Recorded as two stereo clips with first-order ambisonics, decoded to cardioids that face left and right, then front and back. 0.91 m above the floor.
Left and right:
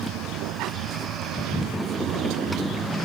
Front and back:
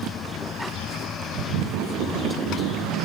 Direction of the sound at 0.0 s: 55° right.